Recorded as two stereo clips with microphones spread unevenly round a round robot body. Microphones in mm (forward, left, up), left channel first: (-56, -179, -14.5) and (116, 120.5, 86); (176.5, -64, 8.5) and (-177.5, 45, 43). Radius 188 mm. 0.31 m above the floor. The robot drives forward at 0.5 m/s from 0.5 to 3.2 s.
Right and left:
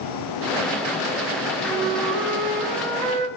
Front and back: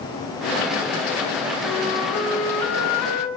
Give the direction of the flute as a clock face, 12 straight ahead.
11 o'clock.